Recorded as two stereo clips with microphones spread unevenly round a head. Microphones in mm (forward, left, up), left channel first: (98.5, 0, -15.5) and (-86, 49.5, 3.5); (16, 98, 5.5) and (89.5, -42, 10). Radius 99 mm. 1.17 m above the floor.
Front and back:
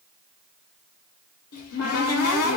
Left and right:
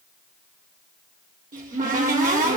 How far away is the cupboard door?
About 1.4 m.